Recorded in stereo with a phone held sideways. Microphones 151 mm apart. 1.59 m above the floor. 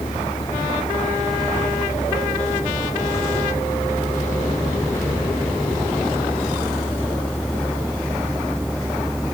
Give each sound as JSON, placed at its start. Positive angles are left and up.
{"t": 0.0, "sound": "a vehicle", "side_deg": 30}